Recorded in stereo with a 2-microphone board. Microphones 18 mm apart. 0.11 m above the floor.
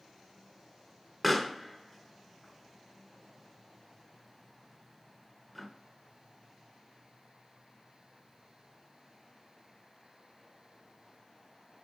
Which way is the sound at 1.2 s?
Centre (ahead or behind).